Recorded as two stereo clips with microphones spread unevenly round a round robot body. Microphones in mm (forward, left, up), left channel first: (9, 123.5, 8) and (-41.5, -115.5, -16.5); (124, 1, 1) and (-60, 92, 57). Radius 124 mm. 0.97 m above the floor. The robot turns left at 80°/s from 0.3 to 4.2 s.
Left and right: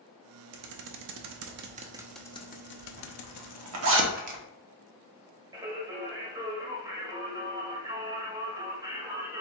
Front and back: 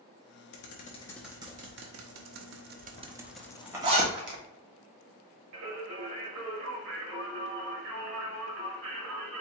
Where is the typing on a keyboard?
65° right, 0.6 m; by 4.0 s 20° left, 0.6 m.